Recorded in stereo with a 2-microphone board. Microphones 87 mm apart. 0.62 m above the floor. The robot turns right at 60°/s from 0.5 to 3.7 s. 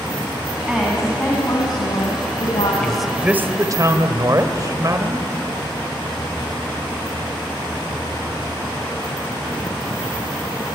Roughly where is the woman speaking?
Ahead.